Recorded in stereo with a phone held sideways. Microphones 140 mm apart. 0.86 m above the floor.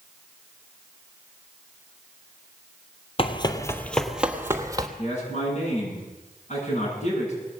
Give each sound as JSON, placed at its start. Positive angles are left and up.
{"t": 3.2, "sound": "running footsteps", "side_deg": 45, "distance_m": 1.2}
{"t": 5.0, "sound": "a man speaking", "side_deg": 60, "distance_m": 8.5}